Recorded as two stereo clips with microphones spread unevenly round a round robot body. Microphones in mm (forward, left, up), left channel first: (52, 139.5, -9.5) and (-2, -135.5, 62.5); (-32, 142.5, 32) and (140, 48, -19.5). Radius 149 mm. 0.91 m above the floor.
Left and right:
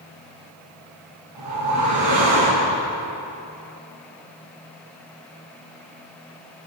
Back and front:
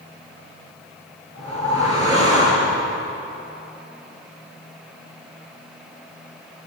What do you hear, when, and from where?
1.4 s a whoosh: 80° right, 8.5 m